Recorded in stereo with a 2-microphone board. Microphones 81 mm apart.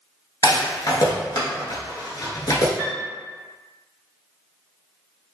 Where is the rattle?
55° left (ahead or behind), 0.7 m.